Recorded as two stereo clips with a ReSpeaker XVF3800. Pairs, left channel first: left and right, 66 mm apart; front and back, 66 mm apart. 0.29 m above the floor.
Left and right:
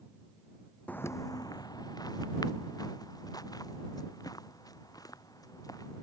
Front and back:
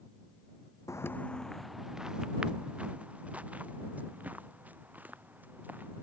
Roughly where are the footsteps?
Ahead left.